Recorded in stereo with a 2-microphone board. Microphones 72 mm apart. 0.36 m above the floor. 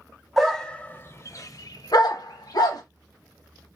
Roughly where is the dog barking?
Centre.